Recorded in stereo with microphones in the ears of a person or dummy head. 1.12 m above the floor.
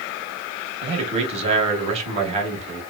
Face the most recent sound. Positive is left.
turn(degrees=-35)  # may be behind; listen again after turning